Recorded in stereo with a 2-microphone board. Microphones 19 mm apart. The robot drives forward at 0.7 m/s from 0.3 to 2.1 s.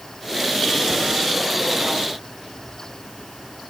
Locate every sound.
Only background noise.